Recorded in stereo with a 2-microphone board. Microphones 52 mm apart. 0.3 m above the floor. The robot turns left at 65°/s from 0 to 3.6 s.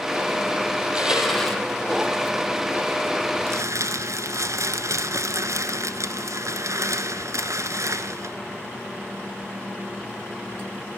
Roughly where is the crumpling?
Right.